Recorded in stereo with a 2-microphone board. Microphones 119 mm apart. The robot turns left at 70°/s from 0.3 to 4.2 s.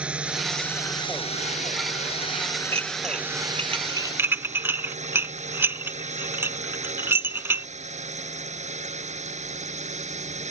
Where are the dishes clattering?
55° right (ahead or behind); by 7.7 s 20° right (ahead or behind).